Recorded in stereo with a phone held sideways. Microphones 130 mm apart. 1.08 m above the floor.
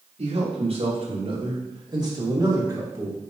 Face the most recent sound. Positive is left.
turn(degrees=-20)  # may be behind; listen again after turning